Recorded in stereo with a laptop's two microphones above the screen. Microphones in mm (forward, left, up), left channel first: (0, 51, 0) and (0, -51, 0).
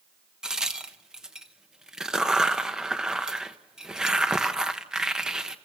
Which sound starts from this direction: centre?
A crack, at 0.4 s.